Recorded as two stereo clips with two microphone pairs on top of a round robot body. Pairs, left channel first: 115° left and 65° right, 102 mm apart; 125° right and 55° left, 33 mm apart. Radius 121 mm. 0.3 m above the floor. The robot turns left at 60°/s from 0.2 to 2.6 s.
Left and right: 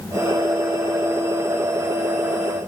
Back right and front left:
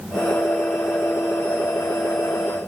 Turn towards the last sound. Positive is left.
No sound to turn to.